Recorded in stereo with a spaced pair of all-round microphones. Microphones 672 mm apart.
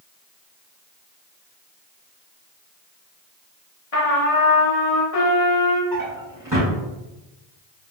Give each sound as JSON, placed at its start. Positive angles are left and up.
{"t": 3.9, "sound": "a trumpet", "side_deg": 55, "distance_m": 1.0}
{"t": 5.9, "sound": "a drawer", "side_deg": -25, "distance_m": 1.7}